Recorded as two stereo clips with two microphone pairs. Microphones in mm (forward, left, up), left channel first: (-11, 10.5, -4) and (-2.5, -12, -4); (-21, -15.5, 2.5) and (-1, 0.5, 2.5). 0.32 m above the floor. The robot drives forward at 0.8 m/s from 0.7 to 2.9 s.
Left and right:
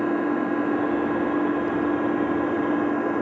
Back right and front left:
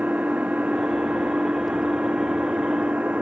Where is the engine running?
25° left; by 3.2 s 30° left.